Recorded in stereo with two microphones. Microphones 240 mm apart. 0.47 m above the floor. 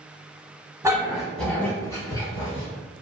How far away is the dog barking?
About 1.0 m.